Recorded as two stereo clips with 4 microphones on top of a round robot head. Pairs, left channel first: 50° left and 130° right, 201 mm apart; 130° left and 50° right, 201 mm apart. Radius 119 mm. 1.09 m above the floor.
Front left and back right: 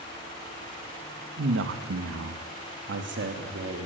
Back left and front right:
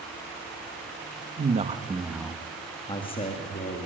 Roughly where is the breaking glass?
I don't hear breaking glass.